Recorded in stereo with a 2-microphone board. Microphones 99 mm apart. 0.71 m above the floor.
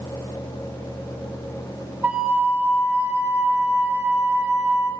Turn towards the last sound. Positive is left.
turn(degrees=-20)  # may be behind; listen again after turning